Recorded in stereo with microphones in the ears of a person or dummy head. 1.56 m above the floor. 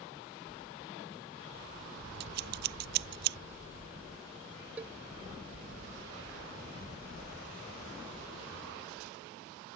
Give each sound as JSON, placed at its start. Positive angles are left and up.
{"t": 2.2, "sound": "scissors", "side_deg": -65}
{"t": 4.8, "sound": "a cowbell", "side_deg": -10}